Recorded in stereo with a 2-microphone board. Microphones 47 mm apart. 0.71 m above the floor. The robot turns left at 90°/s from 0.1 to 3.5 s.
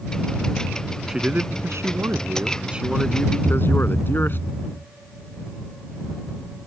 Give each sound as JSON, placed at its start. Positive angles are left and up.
{"t": 1.1, "sound": "a man speaking", "azimuth_deg": -10}
{"t": 3.4, "sound": "a thud", "side_deg": -70}